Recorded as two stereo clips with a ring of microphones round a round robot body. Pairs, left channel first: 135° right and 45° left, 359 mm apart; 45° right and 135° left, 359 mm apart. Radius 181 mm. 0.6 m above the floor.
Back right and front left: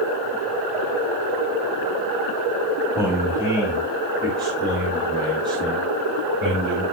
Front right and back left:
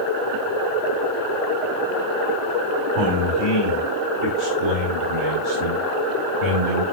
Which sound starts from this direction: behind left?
A man speaking, at 3.0 s.